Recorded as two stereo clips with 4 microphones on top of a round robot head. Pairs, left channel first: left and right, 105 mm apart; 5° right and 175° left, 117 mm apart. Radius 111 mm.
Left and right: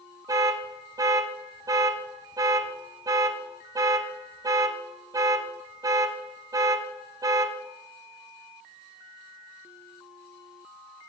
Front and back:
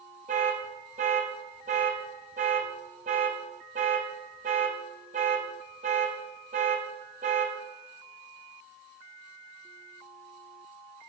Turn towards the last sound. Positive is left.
turn(degrees=-145)